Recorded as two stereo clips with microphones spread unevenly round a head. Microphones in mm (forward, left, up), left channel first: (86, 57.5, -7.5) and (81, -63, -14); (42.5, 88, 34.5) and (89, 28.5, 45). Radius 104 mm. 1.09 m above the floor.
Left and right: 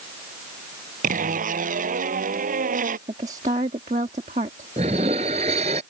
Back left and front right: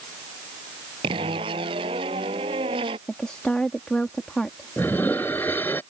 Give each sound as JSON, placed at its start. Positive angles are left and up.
{"t": 1.0, "sound": "a zipper", "azimuth_deg": -90}
{"t": 3.1, "sound": "a woman speaking", "azimuth_deg": -150}
{"t": 4.8, "sound": "dishes clattering", "azimuth_deg": -155}